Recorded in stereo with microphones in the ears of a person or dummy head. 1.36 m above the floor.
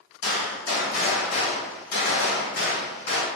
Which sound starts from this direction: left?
A gunshot, at 0.2 s.